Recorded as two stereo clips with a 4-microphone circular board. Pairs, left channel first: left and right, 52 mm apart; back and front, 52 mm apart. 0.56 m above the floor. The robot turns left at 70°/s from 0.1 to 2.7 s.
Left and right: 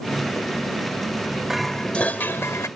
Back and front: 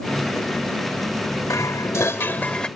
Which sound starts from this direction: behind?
Dishes clattering, at 1.5 s.